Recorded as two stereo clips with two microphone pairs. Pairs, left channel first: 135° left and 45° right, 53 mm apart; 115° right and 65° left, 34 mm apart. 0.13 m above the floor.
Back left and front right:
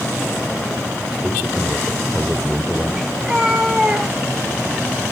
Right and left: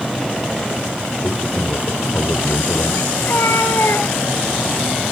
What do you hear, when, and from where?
1.2 s a man speaking: 140° right, 4 m
3.2 s a cat meowing: 130° right, 3.5 m